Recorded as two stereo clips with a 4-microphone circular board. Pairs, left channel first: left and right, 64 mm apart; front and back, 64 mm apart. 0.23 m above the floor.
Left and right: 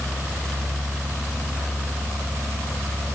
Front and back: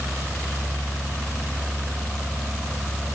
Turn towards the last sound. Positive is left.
No sound to turn to.